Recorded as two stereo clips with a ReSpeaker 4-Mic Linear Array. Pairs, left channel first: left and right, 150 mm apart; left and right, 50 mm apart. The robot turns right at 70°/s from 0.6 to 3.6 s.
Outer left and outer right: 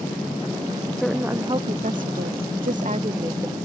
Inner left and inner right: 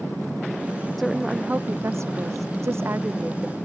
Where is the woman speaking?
175° left; by 3.6 s 5° right.